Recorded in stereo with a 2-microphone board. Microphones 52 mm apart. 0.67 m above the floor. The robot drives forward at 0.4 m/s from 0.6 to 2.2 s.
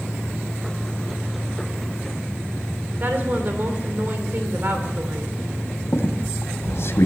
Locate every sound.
3.0 s a woman speaking: 45° right (ahead or behind), 2.5 m
5.9 s a squeak: 60° left (ahead or behind), 2 m